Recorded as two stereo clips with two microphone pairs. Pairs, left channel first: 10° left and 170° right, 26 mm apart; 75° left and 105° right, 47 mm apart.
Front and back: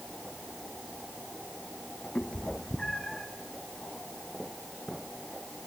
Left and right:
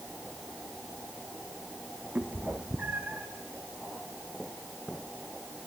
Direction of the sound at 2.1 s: 45° right.